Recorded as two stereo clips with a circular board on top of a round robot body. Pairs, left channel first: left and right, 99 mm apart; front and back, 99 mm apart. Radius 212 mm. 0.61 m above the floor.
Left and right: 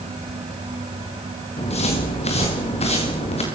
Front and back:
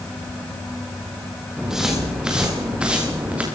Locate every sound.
1.6 s footsteps: 95° left, 6.5 m; by 3.4 s 105° left, 7.5 m